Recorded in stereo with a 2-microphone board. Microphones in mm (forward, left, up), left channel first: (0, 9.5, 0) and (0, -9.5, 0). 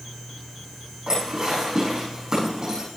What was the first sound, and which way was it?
Dishes clattering, 45° right (ahead or behind).